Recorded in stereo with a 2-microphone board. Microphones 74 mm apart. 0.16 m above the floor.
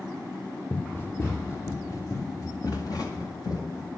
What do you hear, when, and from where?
0.7 s running footsteps: 25° left (ahead or behind), 1.6 m; by 3.9 s 60° left (ahead or behind), 3 m